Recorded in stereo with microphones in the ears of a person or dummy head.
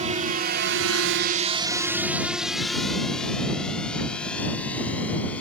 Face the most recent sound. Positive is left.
turn(degrees=10)  # may be behind; listen again after turning